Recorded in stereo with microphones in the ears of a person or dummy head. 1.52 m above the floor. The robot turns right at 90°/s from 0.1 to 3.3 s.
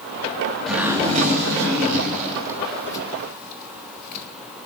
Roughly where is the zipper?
Centre.